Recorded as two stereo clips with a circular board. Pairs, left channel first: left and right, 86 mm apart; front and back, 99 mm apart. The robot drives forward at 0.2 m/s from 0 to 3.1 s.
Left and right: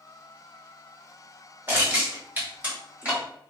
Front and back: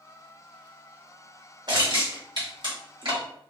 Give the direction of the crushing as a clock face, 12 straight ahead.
5 o'clock.